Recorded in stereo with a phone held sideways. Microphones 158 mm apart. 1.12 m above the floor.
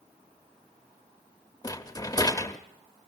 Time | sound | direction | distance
1.6 | a rattle | 25° left (ahead or behind) | 0.8 m